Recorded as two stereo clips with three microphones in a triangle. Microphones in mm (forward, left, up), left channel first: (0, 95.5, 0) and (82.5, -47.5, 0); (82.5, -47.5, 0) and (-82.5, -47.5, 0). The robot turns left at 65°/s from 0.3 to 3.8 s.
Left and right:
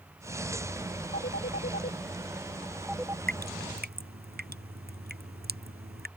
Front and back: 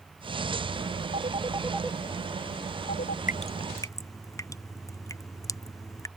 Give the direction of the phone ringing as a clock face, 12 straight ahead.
7 o'clock.